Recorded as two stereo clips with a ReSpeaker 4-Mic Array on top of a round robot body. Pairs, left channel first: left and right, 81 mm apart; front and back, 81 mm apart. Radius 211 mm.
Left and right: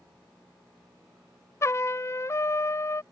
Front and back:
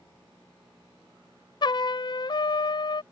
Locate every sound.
1.6 s a trumpet: 30° left